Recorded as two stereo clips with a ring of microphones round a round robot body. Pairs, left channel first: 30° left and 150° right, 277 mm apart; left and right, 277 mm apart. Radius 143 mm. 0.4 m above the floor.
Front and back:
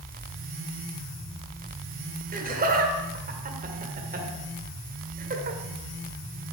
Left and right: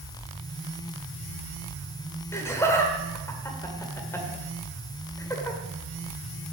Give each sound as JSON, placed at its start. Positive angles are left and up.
{"t": 2.3, "sound": "laughter", "azimuth_deg": 165, "distance_m": 1.7}